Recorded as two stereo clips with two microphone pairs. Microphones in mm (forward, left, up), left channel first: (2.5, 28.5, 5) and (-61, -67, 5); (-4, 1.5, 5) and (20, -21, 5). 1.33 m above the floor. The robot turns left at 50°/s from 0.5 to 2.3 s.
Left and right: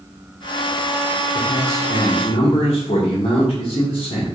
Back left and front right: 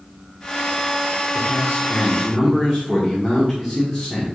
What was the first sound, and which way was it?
A man speaking, 90° left.